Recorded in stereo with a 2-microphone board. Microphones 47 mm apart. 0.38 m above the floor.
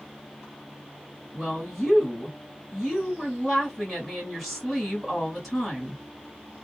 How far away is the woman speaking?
About 1.6 m.